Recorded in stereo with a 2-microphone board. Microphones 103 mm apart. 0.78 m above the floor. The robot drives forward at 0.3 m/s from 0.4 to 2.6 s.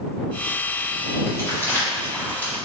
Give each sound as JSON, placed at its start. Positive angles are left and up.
{"t": 1.3, "sound": "crumpling", "side_deg": 25, "distance_m": 1.5}